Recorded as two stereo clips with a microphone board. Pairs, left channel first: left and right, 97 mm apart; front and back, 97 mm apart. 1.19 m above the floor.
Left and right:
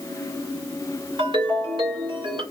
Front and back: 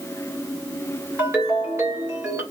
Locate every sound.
1.2 s a ringtone: 115° right, 1.7 m